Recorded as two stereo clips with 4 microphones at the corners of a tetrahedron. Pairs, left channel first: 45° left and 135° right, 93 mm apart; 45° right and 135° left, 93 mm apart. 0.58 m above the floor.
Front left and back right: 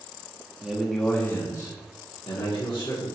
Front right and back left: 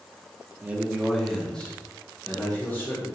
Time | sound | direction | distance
0.6 | a man speaking | 165° left | 0.7 m